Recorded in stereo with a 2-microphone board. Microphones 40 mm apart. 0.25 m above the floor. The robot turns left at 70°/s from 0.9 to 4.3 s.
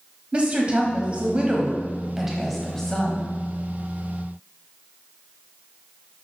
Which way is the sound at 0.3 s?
75° right.